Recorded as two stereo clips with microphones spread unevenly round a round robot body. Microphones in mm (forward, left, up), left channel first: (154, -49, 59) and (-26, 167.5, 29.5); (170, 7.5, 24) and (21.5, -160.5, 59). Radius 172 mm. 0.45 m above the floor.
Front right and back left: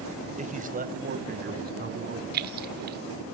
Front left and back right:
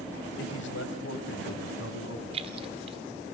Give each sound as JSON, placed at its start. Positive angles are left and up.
{"t": 0.4, "sound": "a man speaking", "azimuth_deg": 70, "distance_m": 2.5}
{"t": 2.3, "sound": "keys jangling", "azimuth_deg": 160, "distance_m": 1.0}